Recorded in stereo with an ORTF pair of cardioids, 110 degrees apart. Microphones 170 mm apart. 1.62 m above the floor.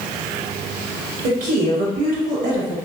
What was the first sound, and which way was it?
A woman speaking, 60° right.